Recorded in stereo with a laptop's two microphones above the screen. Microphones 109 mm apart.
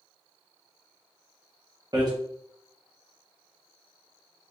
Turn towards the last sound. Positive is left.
turn(degrees=-40)  # may be behind; listen again after turning